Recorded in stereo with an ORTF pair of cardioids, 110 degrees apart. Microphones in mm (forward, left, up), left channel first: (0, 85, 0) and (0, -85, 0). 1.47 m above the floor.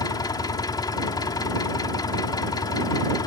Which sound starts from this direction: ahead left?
An engine running, at 0.0 s.